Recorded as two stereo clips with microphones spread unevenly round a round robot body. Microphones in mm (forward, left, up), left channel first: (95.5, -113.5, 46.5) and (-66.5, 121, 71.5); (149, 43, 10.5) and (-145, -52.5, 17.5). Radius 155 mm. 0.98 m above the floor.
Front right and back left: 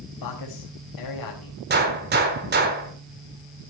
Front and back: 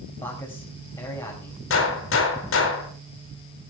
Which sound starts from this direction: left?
A gunshot, at 1.7 s.